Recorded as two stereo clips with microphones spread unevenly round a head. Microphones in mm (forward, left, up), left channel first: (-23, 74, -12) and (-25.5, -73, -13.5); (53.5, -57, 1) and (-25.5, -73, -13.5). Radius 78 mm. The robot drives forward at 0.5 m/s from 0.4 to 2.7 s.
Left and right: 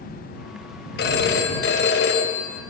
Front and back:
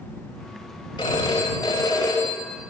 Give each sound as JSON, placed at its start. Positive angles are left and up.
{"t": 1.0, "sound": "a phone ringing", "azimuth_deg": 70, "distance_m": 4.5}